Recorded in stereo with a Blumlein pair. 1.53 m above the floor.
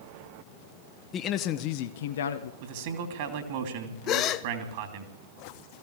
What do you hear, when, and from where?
1.1 s a man speaking: 25° left, 1.1 m; by 2.5 s 70° left, 1.0 m
2.6 s a man speaking: 50° right, 3 m
4.1 s a gasp: 35° left, 0.7 m